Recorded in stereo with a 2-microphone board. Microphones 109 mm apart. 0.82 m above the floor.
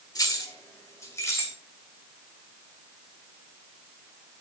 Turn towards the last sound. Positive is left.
turn(degrees=25)  # may be behind; listen again after turning